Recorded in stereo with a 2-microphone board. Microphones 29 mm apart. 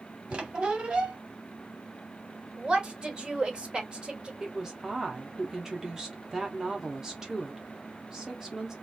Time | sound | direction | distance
0.3 | a squeak | 40° right (ahead or behind) | 0.9 m
2.6 | a woman speaking | 30° right (ahead or behind) | 1.7 m
4.4 | a woman speaking | 20° right (ahead or behind) | 0.9 m